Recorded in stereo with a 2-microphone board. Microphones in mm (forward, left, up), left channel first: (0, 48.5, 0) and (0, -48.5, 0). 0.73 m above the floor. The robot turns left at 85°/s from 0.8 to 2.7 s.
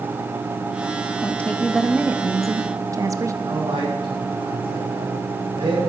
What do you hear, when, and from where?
1.2 s a woman speaking: 40° left, 0.7 m; by 3.3 s 85° right, 0.7 m
3.4 s a man speaking: 60° right (ahead or behind), 4.5 m